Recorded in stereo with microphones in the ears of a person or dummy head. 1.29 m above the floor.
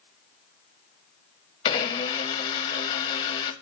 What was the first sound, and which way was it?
A blender, 25° left (ahead or behind).